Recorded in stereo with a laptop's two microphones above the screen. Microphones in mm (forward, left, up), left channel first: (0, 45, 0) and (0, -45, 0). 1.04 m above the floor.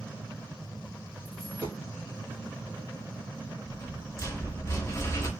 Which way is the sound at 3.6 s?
30° left (ahead or behind).